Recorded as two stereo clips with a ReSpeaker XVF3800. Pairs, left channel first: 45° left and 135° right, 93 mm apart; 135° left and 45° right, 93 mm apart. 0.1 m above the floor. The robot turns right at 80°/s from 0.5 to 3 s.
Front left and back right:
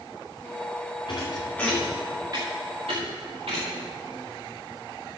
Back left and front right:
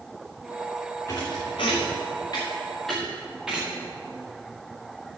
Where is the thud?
80° left, 4.5 m; by 3.8 s 130° right, 4.5 m.